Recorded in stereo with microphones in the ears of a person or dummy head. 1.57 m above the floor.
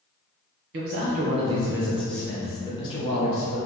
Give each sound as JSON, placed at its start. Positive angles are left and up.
{"t": 0.7, "sound": "a man speaking", "side_deg": -55, "distance_m": 0.8}